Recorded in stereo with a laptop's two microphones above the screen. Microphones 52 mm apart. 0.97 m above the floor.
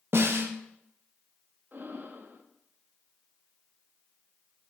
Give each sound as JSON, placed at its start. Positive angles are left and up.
{"t": 0.1, "sound": "a snare drum", "side_deg": -55, "distance_m": 1.2}
{"t": 1.7, "sound": "breathing", "side_deg": -40, "distance_m": 0.9}